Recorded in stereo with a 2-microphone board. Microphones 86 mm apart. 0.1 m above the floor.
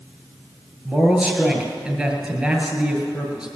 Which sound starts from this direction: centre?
A man speaking, at 0.8 s.